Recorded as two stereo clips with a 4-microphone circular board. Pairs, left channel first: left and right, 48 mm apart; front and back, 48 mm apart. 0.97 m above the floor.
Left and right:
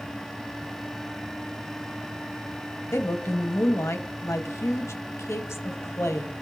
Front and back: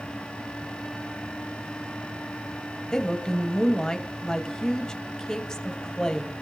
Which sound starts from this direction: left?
A woman speaking, at 2.9 s.